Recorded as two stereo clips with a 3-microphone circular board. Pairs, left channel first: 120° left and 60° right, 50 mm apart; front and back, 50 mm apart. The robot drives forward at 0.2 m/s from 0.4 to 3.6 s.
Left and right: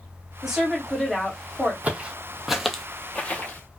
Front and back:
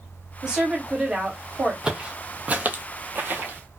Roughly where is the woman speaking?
Behind right.